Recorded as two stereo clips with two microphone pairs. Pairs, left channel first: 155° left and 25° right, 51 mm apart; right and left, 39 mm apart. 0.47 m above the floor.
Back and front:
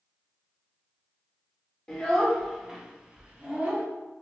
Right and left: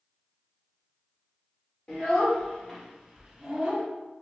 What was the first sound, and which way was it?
A child speaking, 140° right.